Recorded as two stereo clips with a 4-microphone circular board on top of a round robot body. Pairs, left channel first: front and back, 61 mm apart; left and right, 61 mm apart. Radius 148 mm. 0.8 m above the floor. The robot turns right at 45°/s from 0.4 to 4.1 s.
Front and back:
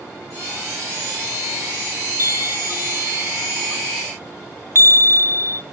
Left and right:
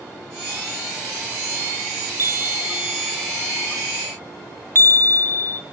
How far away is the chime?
About 0.8 m.